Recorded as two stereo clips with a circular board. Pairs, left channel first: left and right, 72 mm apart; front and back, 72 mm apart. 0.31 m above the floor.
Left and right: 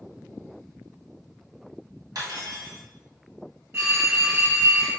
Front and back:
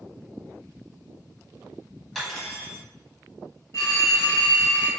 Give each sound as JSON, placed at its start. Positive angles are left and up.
{"t": 2.1, "sound": "cutlery clinking", "azimuth_deg": -90, "distance_m": 1.2}
{"t": 3.7, "sound": "a phone ringing", "azimuth_deg": -40, "distance_m": 1.5}